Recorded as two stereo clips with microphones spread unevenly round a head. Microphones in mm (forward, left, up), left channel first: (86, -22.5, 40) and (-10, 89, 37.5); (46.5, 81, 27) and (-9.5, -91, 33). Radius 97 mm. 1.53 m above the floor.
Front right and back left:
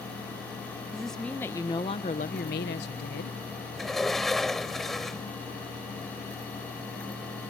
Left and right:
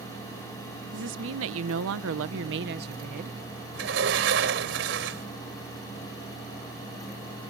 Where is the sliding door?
140° right.